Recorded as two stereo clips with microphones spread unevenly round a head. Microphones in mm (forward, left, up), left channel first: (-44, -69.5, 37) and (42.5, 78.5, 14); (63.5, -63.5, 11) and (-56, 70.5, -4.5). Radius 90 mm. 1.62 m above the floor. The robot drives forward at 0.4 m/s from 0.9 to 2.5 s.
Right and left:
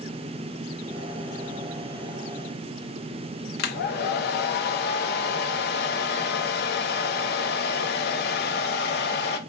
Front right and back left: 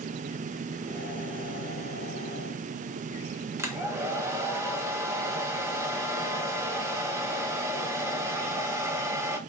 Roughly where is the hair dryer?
Behind right.